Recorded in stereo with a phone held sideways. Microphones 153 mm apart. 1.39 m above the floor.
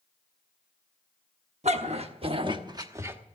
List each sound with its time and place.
1.6 s a dog barking: 45° right (ahead or behind), 1.2 m; by 3.2 s 10° right (ahead or behind), 0.9 m